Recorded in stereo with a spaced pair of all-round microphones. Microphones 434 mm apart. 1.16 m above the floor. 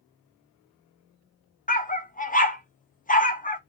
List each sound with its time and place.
1.7 s a dog barking: 20° left (ahead or behind), 0.6 m